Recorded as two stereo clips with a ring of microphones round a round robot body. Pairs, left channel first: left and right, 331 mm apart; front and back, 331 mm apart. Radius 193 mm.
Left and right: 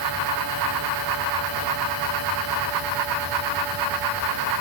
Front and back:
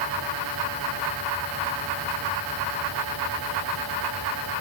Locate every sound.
Only background noise.